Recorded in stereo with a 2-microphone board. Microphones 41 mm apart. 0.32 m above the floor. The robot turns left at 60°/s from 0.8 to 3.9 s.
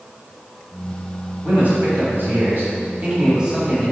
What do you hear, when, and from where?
1.4 s a man speaking: 40° right, 1.9 m; by 3.9 s 175° left, 1.9 m